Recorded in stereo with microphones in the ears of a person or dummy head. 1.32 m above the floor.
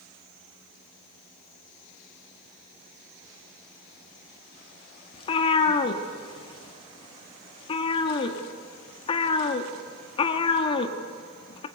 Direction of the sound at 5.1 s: 40° left (ahead or behind).